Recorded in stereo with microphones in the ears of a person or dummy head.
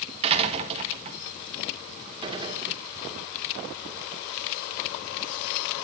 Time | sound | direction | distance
0.2 | a door slam | 35° right (ahead or behind) | 1.4 m
2.2 | a gunshot | 25° right (ahead or behind) | 2 m